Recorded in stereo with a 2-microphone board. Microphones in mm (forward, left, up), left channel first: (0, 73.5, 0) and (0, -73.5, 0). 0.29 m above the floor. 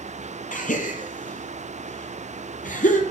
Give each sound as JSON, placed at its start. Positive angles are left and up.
{"t": 0.5, "sound": "a gasp", "side_deg": 65, "distance_m": 1.4}